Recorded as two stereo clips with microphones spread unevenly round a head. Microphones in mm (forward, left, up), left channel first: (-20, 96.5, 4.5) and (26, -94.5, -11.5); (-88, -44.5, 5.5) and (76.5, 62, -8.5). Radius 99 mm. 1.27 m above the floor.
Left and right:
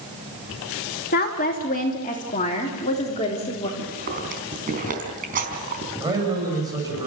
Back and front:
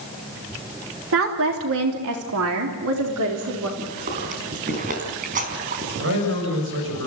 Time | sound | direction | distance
1.1 | a woman speaking | 55° left | 3 m
3.8 | chewing | 20° right | 4.5 m
6.0 | a man speaking | 5° right | 7 m